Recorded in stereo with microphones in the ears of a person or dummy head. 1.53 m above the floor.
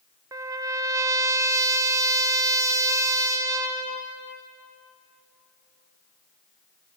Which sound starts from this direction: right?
A trumpet, at 0.3 s.